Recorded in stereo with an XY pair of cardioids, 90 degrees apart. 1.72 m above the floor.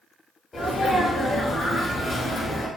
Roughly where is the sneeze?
Ahead left.